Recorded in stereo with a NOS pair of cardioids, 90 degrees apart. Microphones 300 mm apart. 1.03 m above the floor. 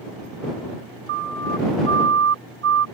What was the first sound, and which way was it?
A siren, 40° right.